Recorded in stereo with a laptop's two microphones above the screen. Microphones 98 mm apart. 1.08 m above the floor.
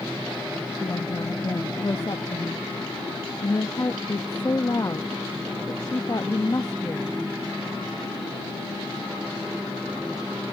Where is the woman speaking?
40° left (ahead or behind).